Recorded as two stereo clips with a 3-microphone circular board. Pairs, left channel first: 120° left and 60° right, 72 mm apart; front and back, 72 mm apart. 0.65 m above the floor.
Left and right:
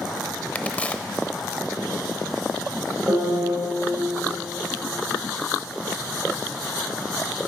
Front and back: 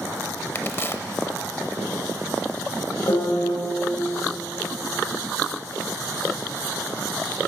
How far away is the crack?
About 0.6 m.